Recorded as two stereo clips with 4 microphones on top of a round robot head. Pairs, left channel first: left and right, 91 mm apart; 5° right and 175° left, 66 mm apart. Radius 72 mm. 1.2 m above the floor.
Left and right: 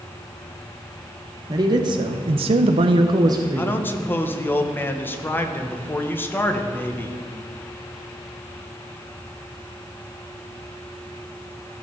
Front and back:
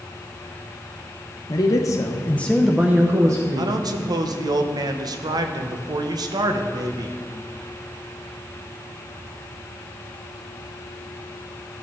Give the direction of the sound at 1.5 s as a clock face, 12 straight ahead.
1 o'clock.